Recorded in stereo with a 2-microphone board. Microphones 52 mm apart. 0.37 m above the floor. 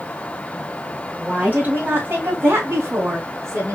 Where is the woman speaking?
20° right (ahead or behind), 1.8 m; by 3.8 s 75° right (ahead or behind), 3 m.